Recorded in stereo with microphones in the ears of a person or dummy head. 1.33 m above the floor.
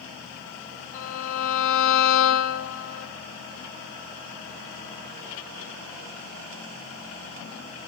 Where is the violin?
45° left (ahead or behind), 2.5 m.